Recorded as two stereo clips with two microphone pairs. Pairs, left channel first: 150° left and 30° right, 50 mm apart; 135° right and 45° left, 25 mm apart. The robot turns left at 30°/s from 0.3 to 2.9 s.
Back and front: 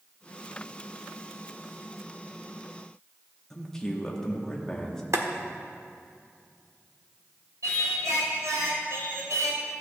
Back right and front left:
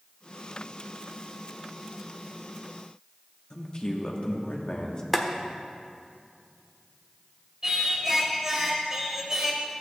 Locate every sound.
3.5 s a man speaking: 135° right, 1.1 m
5.1 s boiling: 50° right, 0.8 m
7.6 s singing: 30° right, 1.3 m